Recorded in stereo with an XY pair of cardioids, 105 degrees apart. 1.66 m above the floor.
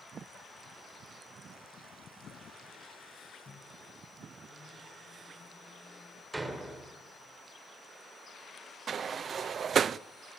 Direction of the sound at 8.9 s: 50° right.